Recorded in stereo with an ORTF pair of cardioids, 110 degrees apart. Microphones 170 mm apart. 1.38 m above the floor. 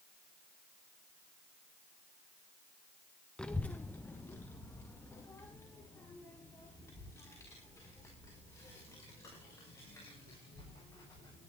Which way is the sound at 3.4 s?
5° left.